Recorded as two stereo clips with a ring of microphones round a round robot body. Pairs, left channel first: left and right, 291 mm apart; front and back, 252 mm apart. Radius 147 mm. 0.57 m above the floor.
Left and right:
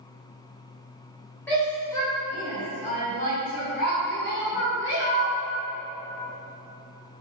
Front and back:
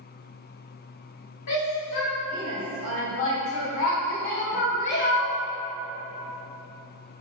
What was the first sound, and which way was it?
A shout, 5° left.